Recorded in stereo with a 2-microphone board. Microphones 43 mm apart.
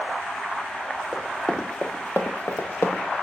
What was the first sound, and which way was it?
Running footsteps, 5° left (ahead or behind).